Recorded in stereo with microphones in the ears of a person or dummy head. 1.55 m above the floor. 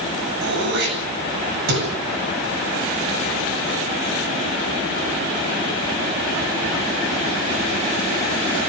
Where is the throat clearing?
60° right (ahead or behind), 8 m.